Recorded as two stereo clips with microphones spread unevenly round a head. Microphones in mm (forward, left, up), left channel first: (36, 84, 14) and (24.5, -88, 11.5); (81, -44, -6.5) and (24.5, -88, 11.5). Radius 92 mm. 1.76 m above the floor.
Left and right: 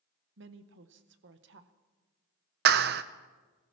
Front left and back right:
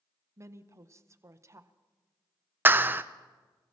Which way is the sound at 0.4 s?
110° right.